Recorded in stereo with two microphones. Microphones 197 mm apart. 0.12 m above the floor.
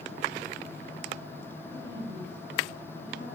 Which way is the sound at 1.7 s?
60° left (ahead or behind).